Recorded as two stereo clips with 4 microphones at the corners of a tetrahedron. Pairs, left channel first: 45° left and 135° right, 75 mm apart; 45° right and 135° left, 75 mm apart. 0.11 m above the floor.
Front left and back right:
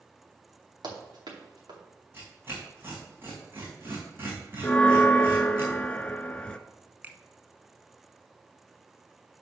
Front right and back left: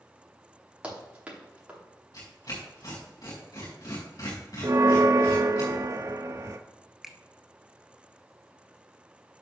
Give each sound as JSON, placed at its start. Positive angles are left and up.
{"t": 0.8, "sound": "running footsteps", "azimuth_deg": -150, "distance_m": 4.0}
{"t": 2.1, "sound": "tearing paper", "azimuth_deg": -75, "distance_m": 4.5}
{"t": 4.6, "sound": "a bell", "azimuth_deg": 115, "distance_m": 0.7}
{"t": 7.0, "sound": "a finger snap", "azimuth_deg": -145, "distance_m": 0.9}